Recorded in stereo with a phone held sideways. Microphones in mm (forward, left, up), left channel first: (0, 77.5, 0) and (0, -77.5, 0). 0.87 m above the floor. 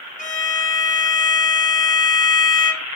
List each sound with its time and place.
0.2 s a violin: 55° left (ahead or behind), 0.8 m